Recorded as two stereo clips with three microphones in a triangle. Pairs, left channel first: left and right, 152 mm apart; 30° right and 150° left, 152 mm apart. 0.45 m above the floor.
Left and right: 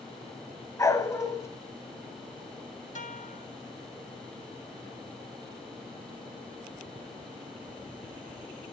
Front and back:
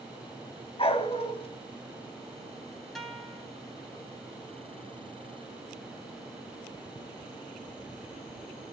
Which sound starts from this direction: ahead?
A dog barking, at 0.8 s.